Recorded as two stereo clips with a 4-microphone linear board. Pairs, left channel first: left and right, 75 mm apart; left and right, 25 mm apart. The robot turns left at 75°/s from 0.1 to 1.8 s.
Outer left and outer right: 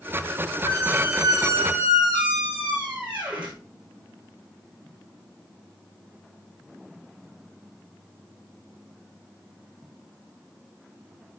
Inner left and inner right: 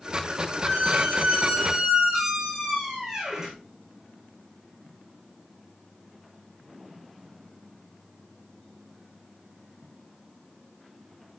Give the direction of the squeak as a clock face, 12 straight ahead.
3 o'clock.